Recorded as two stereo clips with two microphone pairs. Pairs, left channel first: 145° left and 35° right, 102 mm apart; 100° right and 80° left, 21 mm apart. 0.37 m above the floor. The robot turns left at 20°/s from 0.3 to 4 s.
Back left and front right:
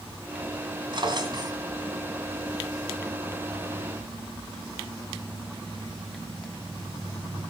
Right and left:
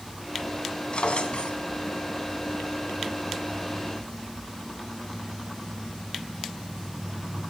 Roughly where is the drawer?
Right.